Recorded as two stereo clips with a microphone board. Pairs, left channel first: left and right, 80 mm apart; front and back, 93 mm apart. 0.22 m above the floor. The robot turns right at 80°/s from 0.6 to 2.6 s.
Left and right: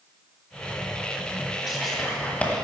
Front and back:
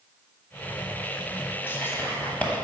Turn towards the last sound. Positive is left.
turn(degrees=60)